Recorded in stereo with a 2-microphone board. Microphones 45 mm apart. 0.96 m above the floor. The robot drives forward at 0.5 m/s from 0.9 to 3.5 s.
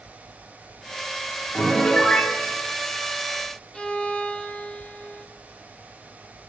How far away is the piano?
About 2 m.